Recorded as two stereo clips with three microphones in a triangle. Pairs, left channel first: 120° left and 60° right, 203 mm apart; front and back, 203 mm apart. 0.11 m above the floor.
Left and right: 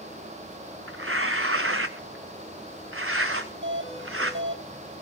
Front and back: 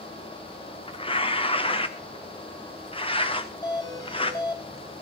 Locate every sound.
0.9 s tearing paper: 65° right, 1.9 m
3.6 s a doorbell: 70° right, 4 m